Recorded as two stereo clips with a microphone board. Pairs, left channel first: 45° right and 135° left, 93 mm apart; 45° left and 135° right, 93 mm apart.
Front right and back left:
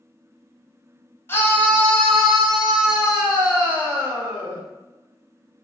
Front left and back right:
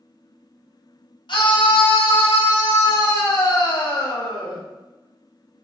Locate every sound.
1.3 s a scream: 20° left, 1.8 m; by 4.6 s 70° left, 3.5 m